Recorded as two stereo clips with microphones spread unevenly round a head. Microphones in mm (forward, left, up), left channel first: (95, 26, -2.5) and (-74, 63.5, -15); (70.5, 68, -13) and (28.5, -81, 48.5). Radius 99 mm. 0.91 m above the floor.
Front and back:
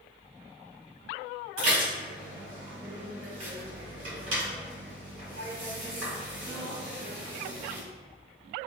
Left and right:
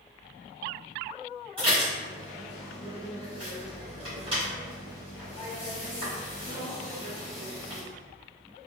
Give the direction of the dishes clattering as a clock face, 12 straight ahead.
6 o'clock.